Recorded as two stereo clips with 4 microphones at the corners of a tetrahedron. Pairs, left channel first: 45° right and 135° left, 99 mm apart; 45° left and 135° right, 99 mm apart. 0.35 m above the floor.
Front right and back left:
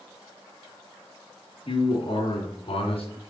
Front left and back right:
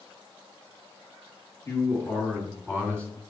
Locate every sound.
1.6 s a man speaking: 20° right, 2.5 m; by 3.1 s 35° right, 3 m